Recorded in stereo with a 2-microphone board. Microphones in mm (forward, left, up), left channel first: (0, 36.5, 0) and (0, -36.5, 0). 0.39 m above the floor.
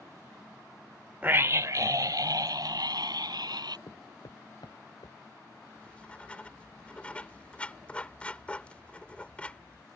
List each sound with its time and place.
1.2 s a scream: 20° right (ahead or behind); by 3.8 s 70° right (ahead or behind)
3.9 s footsteps: 80° left; by 5.2 s 70° left (ahead or behind)
5.8 s writing: 20° left (ahead or behind)